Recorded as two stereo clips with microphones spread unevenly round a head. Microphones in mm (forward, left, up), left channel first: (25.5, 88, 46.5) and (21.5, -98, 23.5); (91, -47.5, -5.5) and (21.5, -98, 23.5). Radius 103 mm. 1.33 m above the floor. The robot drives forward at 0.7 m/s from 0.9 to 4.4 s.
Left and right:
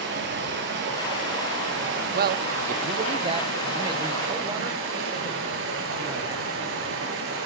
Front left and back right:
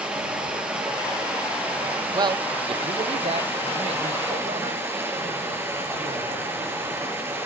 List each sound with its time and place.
0.0 s running water: 70° right, 8 m; by 7.5 s 85° right, 7.5 m
2.1 s a man speaking: 90° right, 0.6 m; by 7.3 s 165° right, 1.7 m